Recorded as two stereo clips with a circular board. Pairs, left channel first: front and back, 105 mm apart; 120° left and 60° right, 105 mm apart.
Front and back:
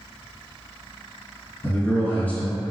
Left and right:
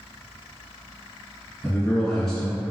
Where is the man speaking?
45° left, 1.5 m.